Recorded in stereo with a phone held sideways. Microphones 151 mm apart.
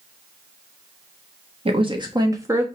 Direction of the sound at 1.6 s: 40° right (ahead or behind).